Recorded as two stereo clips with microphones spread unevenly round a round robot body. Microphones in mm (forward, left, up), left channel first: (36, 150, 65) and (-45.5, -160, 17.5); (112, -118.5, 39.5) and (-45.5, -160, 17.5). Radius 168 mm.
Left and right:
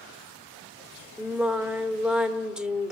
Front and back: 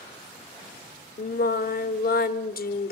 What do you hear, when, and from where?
1.2 s singing: 15° right, 1.1 m